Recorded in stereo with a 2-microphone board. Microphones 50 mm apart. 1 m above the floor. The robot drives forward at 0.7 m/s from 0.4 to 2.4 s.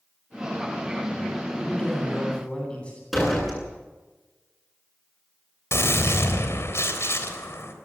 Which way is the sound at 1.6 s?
25° left (ahead or behind).